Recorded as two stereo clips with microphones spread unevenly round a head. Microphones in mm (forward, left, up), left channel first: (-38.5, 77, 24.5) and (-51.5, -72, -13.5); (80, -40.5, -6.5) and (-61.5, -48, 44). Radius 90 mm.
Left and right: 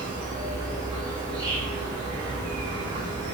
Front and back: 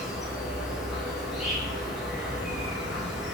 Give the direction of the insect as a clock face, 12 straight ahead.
2 o'clock.